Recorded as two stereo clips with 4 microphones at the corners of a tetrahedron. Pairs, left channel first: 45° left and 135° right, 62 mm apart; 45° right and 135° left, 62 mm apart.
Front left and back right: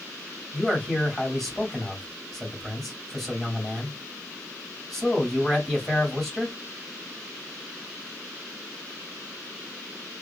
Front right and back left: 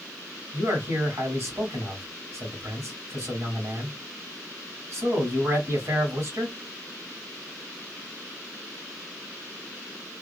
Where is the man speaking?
130° left, 1.8 m.